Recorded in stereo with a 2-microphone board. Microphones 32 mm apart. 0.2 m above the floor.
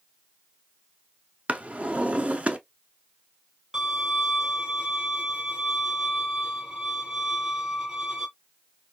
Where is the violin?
20° right (ahead or behind), 2.5 m.